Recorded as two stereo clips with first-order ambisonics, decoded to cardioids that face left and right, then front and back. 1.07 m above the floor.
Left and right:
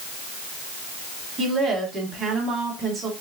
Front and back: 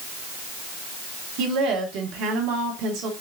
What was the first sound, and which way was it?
A woman speaking, 160° right.